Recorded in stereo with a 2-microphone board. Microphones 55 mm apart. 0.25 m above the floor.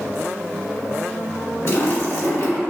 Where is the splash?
65° left (ahead or behind), 1.8 m.